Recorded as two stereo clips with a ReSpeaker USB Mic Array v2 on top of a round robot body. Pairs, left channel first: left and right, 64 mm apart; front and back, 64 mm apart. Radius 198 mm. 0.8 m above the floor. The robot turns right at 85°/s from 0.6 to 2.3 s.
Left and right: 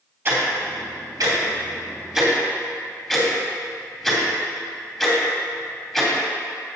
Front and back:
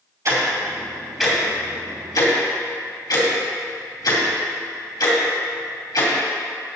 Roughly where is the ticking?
Behind right.